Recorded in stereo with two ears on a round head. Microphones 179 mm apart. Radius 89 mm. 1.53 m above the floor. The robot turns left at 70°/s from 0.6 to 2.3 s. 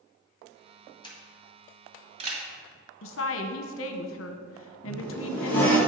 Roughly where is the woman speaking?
Left.